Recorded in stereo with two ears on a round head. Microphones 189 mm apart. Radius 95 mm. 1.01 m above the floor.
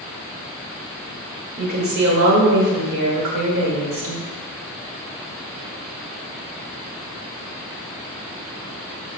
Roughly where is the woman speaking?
Right.